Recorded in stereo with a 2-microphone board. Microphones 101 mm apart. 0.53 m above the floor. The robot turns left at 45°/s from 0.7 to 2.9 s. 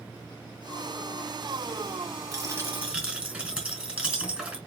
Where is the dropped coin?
35° right (ahead or behind), 2 m; by 4.6 s 10° right (ahead or behind), 2 m.